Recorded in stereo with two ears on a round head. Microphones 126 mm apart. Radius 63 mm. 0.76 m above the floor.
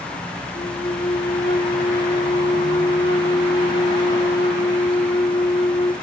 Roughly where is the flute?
Left.